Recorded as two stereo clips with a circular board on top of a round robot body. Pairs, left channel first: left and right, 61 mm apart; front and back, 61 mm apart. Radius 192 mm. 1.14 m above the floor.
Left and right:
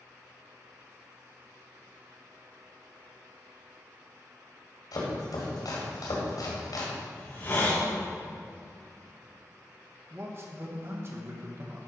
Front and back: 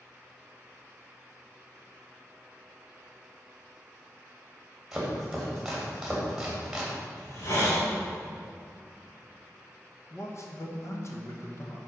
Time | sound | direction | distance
4.9 | chopping | 95° left | 2 m
7.2 | a hiss | 40° left | 3 m
10.1 | a man speaking | 40° right | 1.7 m